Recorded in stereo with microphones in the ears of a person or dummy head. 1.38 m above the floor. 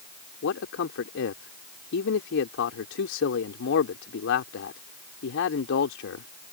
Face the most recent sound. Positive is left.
turn(degrees=70)  # may be behind; listen again after turning